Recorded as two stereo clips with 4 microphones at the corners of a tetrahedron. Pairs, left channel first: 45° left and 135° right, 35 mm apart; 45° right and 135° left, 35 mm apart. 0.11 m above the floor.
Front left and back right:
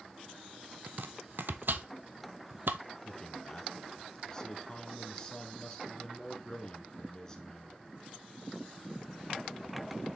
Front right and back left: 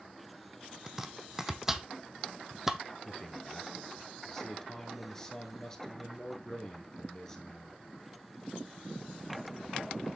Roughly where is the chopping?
Behind right.